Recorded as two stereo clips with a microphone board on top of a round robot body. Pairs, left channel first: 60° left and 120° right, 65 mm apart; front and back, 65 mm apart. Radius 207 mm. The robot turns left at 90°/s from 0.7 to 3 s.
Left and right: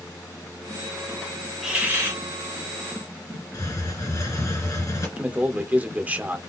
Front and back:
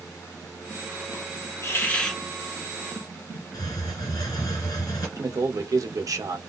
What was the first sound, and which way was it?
A hiss, 35° right.